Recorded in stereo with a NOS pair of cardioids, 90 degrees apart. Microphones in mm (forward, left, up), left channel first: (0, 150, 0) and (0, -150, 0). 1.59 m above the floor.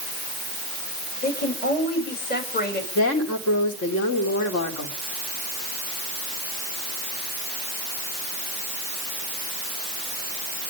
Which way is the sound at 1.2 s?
30° left.